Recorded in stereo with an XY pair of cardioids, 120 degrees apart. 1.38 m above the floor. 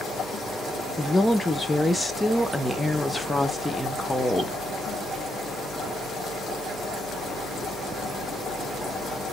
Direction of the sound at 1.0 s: 10° left.